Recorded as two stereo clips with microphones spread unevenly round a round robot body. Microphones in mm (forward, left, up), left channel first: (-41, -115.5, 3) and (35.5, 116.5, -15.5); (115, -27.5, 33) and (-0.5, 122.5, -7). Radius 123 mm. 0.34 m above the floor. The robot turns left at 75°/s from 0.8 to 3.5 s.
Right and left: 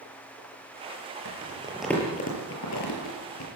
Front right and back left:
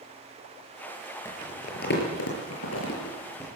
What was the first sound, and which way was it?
Crumpling, 25° left.